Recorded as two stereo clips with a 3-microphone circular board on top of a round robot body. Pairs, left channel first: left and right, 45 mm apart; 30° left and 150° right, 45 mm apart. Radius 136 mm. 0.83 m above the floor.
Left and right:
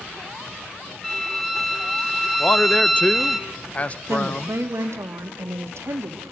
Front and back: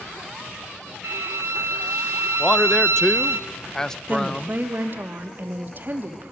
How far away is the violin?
About 0.9 m.